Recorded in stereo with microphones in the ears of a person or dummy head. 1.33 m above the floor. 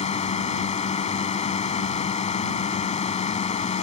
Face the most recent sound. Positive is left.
turn(degrees=35)  # may be behind; listen again after turning